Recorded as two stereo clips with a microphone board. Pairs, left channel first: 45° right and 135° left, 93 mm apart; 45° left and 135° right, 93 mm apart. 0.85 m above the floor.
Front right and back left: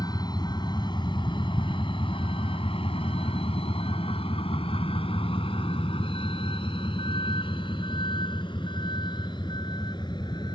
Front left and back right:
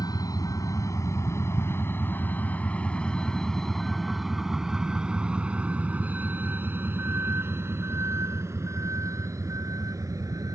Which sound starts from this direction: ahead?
A vehicle, at 0.0 s.